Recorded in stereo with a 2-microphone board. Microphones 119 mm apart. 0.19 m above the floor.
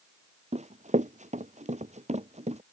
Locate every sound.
0.5 s running footsteps: 65° right (ahead or behind)